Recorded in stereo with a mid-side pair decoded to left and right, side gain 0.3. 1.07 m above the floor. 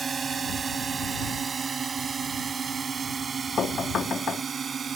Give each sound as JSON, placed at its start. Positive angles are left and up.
{"t": 0.0, "sound": "a drone", "azimuth_deg": -55}
{"t": 3.6, "sound": "knocking", "azimuth_deg": 70}